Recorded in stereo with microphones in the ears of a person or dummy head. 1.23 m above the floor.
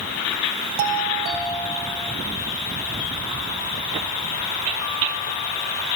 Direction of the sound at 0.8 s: 50° right (ahead or behind).